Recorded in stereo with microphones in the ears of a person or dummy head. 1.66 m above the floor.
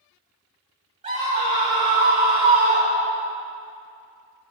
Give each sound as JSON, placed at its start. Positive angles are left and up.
{"t": 1.0, "sound": "a scream", "side_deg": -30, "distance_m": 3.0}